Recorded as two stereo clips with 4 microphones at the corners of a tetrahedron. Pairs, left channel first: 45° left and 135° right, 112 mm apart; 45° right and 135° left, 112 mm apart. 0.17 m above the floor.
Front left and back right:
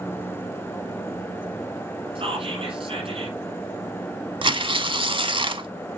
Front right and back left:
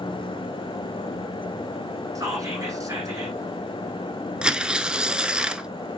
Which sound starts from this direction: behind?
Whispering, at 2.1 s.